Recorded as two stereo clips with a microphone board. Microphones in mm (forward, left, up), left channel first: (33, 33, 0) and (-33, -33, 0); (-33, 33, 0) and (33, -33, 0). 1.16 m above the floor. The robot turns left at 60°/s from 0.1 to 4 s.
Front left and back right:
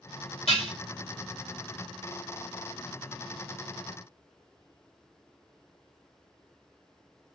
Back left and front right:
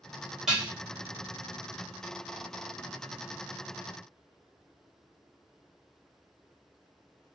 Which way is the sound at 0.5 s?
40° left.